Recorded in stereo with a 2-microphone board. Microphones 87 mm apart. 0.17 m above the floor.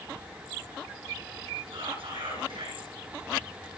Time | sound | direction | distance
1.7 | whispering | 85° right | 10 m